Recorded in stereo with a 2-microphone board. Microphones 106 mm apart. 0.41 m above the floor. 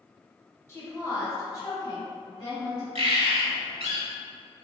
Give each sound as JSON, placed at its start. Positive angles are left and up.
{"t": 0.7, "sound": "a woman speaking", "side_deg": 25, "distance_m": 1.3}
{"t": 3.0, "sound": "a bird", "side_deg": -80, "distance_m": 0.8}